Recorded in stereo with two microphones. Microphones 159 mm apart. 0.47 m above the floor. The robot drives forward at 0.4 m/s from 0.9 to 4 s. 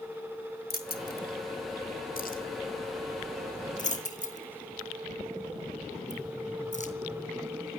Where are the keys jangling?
75° left (ahead or behind), 2 m; by 6.9 s 50° left (ahead or behind), 2.5 m.